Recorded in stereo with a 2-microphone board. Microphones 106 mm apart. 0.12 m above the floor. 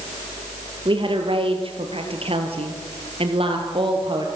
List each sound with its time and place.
0.8 s a woman speaking: 50° right (ahead or behind), 3.5 m; by 4.3 s 45° right (ahead or behind), 3.5 m